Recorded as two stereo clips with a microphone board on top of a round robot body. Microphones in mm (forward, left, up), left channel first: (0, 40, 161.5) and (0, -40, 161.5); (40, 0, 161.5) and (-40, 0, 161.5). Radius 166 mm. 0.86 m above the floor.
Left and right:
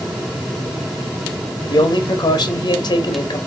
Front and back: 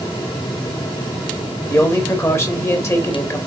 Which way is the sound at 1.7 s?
55° left.